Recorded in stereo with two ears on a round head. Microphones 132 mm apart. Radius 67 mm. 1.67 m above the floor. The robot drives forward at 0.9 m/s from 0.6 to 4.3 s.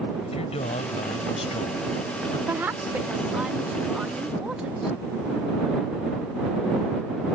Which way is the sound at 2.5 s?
15° right (ahead or behind).